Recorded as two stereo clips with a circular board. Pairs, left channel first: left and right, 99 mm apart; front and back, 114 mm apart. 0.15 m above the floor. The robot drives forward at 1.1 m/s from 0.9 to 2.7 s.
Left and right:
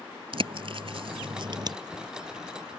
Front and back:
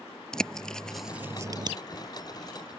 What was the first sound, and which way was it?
A bird, 85° right.